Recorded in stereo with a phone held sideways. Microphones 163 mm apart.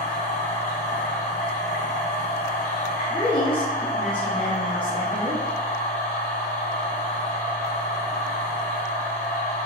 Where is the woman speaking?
30° left (ahead or behind), 0.9 m.